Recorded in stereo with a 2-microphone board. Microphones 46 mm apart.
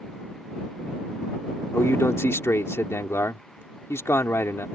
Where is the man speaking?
90° left.